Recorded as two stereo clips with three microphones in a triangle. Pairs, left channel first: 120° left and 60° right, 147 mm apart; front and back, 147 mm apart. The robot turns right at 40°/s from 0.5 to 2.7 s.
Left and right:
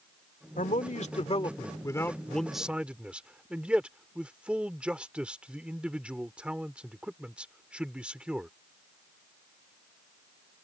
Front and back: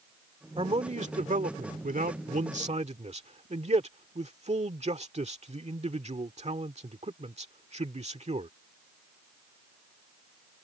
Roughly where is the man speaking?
Behind left.